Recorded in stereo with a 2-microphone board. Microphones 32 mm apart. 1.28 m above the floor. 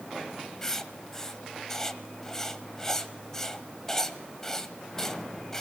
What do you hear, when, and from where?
0.6 s writing: 15° left (ahead or behind), 1.2 m